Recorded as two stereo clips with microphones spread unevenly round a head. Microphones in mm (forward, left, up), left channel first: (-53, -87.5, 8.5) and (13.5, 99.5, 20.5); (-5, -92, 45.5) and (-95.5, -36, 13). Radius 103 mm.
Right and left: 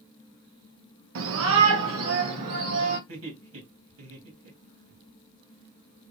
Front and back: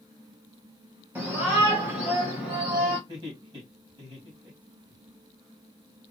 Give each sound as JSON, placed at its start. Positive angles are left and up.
{"t": 1.1, "sound": "a shout", "azimuth_deg": 80, "distance_m": 1.0}
{"t": 3.1, "sound": "laughter", "azimuth_deg": 85, "distance_m": 2.5}